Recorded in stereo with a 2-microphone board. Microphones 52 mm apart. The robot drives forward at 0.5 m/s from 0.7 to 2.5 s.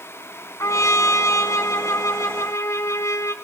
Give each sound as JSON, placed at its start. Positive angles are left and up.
{"t": 0.6, "sound": "a trumpet", "side_deg": 70, "distance_m": 3.0}